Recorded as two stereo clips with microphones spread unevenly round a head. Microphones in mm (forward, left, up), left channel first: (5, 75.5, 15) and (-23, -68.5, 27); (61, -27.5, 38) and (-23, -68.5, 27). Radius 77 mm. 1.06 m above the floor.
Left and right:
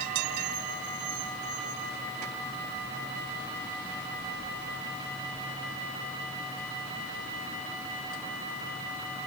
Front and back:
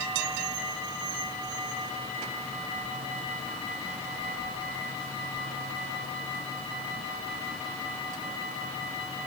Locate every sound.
Only background noise.